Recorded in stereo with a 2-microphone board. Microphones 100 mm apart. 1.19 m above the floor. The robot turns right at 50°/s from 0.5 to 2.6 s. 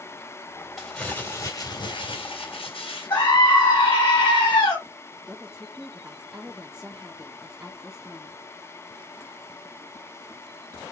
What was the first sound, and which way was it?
Crumpling, straight ahead.